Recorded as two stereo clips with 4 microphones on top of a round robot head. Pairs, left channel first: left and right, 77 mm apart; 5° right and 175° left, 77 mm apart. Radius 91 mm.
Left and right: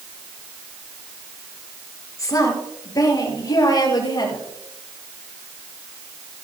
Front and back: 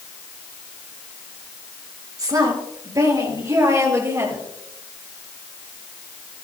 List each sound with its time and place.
2.2 s a woman speaking: 135° left, 6 m; by 4.5 s 120° left, 6.5 m